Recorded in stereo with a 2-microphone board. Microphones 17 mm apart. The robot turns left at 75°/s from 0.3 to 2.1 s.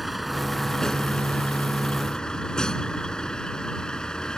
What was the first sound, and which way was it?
A vehicle, 175° right.